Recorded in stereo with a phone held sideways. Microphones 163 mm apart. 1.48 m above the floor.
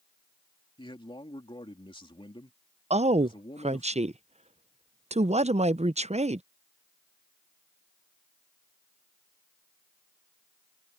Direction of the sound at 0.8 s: 30° left (ahead or behind).